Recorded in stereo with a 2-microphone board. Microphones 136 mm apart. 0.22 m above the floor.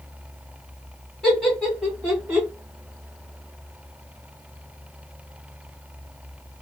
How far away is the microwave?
No microwave in this recording.